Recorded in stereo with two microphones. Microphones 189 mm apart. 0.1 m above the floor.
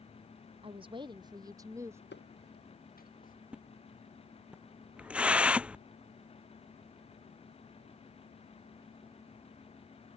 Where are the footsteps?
65° left (ahead or behind); by 3.3 s 45° left (ahead or behind).